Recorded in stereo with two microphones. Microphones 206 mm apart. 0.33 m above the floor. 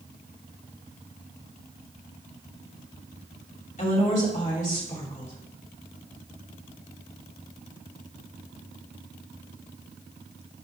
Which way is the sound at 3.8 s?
40° left (ahead or behind).